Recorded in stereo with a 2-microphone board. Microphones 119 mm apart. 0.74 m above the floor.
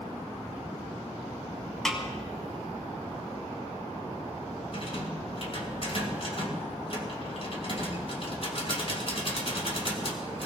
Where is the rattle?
50° left (ahead or behind), 2.5 m.